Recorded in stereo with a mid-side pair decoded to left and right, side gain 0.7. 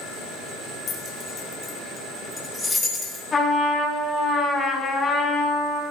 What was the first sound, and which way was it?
Keys jangling, 45° left.